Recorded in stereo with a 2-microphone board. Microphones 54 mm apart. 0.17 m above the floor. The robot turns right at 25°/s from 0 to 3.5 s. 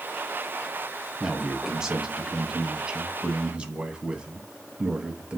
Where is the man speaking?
5° right (ahead or behind), 1.0 m; by 5.4 s 20° right (ahead or behind), 1.0 m.